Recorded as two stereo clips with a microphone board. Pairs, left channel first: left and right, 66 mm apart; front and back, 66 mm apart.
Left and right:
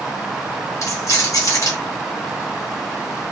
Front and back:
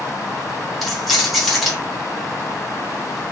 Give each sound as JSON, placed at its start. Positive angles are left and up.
{"t": 0.8, "sound": "keys jangling", "azimuth_deg": 90, "distance_m": 1.0}